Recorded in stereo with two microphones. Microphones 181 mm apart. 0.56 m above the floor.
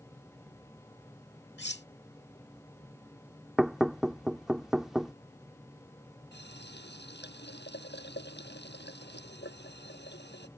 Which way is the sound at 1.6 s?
70° left (ahead or behind).